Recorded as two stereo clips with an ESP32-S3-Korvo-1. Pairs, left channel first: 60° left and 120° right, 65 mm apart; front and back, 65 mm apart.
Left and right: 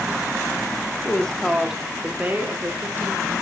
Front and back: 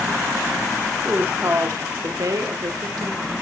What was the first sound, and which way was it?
A woman speaking, 120° left.